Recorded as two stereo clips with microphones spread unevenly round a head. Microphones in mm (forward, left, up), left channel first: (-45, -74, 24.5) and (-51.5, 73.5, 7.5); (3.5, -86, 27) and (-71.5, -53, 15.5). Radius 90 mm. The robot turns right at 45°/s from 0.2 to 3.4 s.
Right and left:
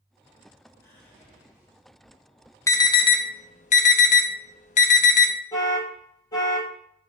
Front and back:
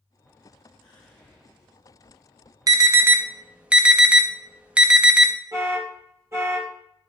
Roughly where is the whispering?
Ahead.